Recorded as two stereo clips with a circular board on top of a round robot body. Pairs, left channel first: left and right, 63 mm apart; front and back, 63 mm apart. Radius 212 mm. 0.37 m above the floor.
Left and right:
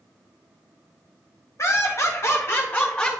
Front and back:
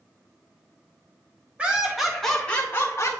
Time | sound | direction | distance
1.6 | laughter | 115° left | 2 m